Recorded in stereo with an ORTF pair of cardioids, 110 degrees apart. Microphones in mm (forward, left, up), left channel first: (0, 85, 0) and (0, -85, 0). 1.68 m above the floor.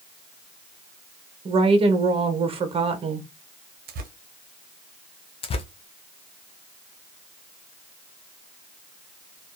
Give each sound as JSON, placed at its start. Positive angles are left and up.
{"t": 1.4, "sound": "a woman speaking", "azimuth_deg": -35, "distance_m": 0.9}
{"t": 3.9, "sound": "tearing paper", "azimuth_deg": -60, "distance_m": 0.8}
{"t": 5.4, "sound": "tearing paper", "azimuth_deg": 35, "distance_m": 0.6}